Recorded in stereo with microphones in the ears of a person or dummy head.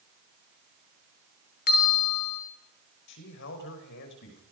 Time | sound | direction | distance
1.7 | a bell | 50° left (ahead or behind) | 2 m
3.1 | a man speaking | 60° left (ahead or behind) | 5 m